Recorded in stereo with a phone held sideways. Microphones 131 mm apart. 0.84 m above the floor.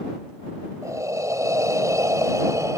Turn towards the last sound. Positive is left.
turn(degrees=-25)  # may be behind; listen again after turning